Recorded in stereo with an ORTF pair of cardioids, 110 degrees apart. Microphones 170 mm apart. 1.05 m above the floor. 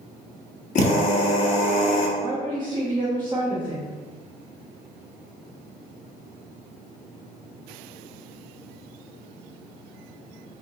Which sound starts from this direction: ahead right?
A woman speaking, at 2.2 s.